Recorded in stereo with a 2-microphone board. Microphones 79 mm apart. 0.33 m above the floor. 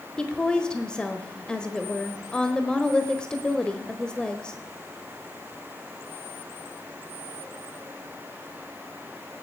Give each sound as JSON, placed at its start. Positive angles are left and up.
{"t": 0.2, "sound": "a woman speaking", "side_deg": 10, "distance_m": 1.2}